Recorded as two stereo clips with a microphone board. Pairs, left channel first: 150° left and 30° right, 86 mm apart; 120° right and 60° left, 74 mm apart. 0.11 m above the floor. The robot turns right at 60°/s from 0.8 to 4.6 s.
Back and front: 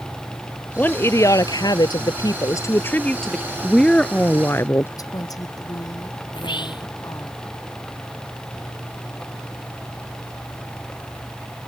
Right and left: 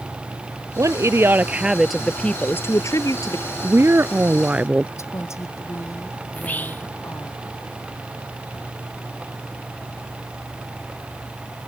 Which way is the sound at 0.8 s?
85° left.